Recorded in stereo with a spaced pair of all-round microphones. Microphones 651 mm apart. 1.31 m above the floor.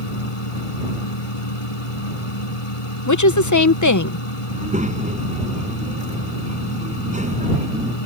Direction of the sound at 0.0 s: 50° left (ahead or behind).